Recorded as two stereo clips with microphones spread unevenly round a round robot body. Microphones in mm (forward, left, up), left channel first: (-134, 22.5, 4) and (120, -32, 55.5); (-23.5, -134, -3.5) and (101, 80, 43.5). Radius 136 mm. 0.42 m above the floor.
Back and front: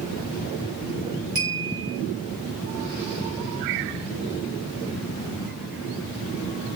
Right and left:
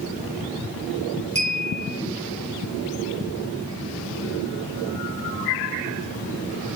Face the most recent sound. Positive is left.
turn(degrees=-5)